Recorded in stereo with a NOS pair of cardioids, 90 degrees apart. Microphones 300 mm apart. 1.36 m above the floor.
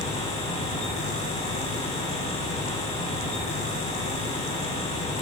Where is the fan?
20° left, 3 m.